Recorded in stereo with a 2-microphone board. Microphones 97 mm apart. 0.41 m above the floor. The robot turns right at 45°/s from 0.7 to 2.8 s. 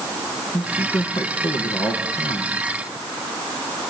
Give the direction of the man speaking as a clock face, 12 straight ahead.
11 o'clock.